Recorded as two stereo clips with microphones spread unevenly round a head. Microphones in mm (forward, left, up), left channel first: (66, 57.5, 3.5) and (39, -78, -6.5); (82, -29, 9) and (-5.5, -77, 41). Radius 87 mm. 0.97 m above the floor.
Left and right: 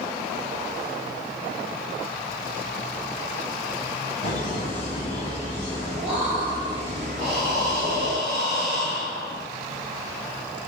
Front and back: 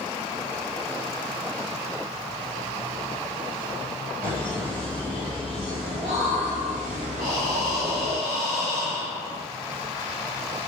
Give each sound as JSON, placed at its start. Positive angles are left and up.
{"t": 4.2, "sound": "laughter", "azimuth_deg": 135, "distance_m": 1.6}
{"t": 7.2, "sound": "breathing", "azimuth_deg": 170, "distance_m": 1.1}